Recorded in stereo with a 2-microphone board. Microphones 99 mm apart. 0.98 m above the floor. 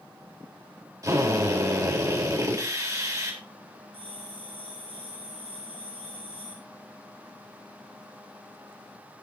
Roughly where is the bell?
Right.